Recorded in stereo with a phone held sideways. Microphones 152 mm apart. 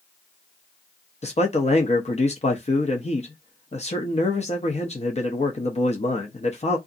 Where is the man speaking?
45° left (ahead or behind), 0.6 m.